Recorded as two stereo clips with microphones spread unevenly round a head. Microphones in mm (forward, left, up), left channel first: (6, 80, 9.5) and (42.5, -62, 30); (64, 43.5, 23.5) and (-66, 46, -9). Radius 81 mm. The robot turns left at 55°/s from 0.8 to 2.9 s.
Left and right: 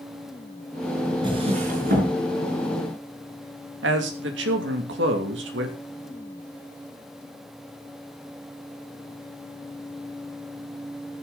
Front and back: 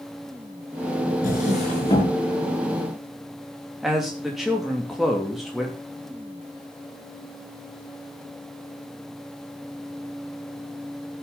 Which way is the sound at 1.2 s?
20° right.